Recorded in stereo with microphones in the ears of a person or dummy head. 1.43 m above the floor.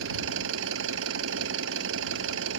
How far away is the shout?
I don't hear a shout.